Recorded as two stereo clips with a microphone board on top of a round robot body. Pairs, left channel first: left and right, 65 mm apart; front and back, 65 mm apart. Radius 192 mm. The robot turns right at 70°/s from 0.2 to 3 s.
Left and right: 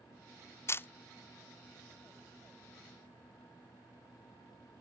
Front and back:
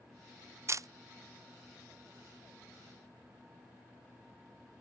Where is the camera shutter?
135° left; by 0.9 s 150° left.